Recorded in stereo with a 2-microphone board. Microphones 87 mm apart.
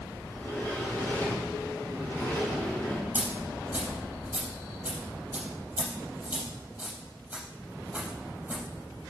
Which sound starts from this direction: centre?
A dropped coin, at 3.1 s.